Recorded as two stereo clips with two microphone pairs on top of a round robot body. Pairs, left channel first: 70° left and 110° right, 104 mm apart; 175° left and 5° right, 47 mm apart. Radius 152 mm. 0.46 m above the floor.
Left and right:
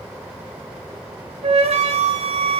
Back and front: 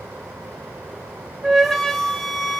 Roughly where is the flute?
Right.